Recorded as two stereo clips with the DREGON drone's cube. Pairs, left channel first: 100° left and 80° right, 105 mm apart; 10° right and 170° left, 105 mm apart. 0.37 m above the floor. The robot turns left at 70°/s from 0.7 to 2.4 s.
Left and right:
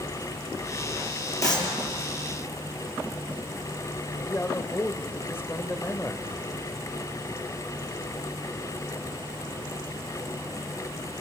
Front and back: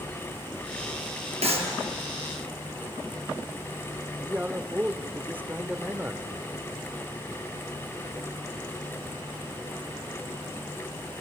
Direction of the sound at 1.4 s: 160° left.